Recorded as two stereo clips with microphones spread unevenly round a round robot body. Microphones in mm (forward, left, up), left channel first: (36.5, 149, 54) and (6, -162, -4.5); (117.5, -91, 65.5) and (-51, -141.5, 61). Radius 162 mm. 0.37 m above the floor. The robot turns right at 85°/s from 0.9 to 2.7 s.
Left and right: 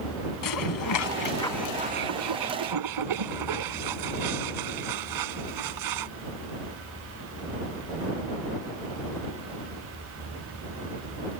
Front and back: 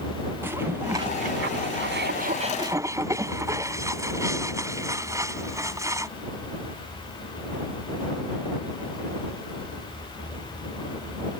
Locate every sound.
0.4 s dishes clattering: 115° left; by 6.1 s 90° right